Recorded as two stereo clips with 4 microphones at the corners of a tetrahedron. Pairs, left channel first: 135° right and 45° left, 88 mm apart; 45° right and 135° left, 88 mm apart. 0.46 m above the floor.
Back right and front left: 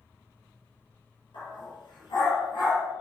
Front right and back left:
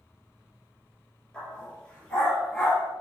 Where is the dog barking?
125° right, 3 m.